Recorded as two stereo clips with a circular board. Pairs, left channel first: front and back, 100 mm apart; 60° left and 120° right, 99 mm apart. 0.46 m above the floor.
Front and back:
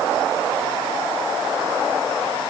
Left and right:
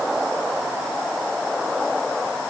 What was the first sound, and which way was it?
Only background noise.